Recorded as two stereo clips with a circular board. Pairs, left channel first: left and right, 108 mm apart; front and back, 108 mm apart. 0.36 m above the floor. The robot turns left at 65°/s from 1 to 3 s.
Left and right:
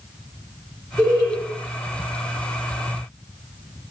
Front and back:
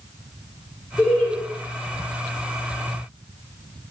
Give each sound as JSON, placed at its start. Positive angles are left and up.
{"t": 1.0, "sound": "laughter", "azimuth_deg": -50, "distance_m": 1.0}